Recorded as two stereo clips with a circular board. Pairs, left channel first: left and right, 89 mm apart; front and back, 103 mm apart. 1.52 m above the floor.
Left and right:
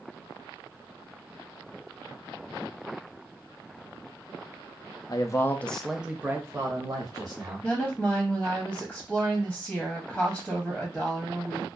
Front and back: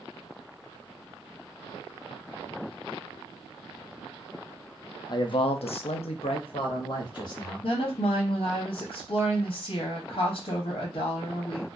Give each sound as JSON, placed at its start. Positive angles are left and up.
{"t": 5.1, "sound": "a man speaking", "azimuth_deg": 45, "distance_m": 0.5}
{"t": 7.6, "sound": "a woman speaking", "azimuth_deg": 10, "distance_m": 0.6}